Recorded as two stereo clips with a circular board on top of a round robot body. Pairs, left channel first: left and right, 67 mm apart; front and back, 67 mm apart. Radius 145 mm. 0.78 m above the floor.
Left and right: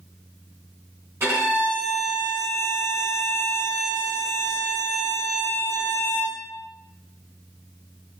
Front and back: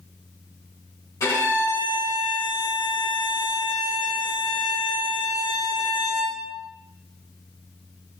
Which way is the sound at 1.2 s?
35° right.